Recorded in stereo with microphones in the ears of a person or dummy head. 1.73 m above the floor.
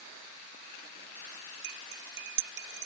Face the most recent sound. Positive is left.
turn(degrees=-65)  # may be behind; listen again after turning